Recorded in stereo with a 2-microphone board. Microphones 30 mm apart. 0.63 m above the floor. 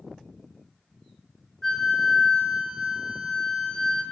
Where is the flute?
5° left (ahead or behind), 3.5 m.